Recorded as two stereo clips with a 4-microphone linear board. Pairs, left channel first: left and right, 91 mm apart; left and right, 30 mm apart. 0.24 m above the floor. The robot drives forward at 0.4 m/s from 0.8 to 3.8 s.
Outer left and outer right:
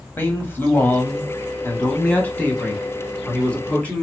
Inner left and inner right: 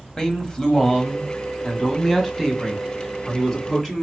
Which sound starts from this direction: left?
A man speaking, at 0.2 s.